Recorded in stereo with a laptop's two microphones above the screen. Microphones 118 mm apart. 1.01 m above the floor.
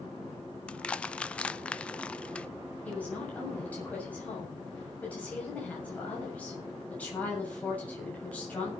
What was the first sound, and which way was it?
Crushing, 10° left (ahead or behind).